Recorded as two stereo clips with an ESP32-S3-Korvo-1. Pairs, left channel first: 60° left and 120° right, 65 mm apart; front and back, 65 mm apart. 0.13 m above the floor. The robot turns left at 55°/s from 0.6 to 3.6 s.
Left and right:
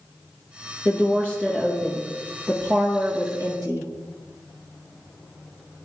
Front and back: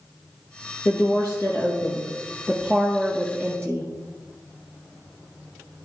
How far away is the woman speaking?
About 3.5 m.